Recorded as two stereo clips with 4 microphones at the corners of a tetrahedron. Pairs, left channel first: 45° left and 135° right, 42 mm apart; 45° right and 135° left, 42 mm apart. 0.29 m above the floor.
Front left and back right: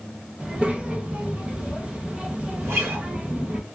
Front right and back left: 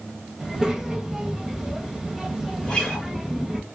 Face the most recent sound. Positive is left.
turn(degrees=-115)